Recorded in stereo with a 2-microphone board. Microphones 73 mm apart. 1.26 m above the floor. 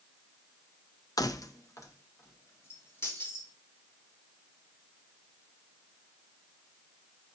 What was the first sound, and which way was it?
Keys jangling, 55° left (ahead or behind).